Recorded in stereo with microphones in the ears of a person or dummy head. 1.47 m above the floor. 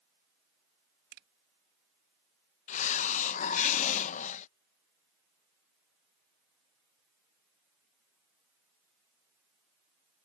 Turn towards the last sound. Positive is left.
turn(degrees=45)  # may be behind; listen again after turning